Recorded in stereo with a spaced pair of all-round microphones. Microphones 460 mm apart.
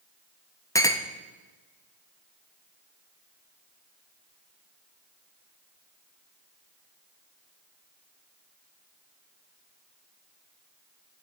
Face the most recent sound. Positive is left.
turn(degrees=5)  # may be behind; listen again after turning